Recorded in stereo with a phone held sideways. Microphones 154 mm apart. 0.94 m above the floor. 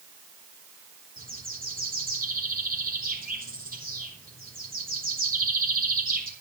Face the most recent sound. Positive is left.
turn(degrees=-70)  # may be behind; listen again after turning